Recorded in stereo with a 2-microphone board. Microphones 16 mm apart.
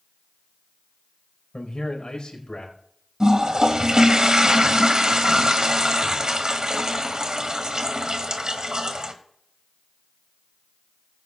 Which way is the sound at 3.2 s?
45° right (ahead or behind).